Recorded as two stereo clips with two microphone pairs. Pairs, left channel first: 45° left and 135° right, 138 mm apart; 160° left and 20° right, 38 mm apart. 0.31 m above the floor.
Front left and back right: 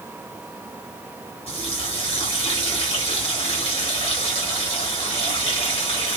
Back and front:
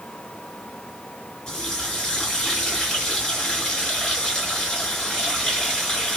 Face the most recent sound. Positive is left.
turn(degrees=90)